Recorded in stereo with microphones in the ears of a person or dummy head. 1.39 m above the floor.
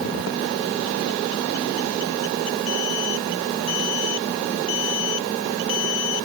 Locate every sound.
Only background noise.